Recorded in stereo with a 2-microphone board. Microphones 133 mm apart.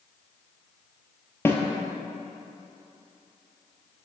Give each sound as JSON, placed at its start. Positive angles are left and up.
{"t": 1.4, "sound": "a snare drum", "side_deg": 20, "distance_m": 0.8}